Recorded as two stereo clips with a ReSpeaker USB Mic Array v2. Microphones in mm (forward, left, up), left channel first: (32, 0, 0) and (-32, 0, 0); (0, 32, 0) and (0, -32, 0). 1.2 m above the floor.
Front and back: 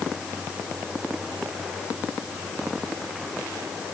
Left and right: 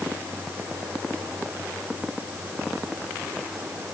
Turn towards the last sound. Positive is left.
No sound to turn to.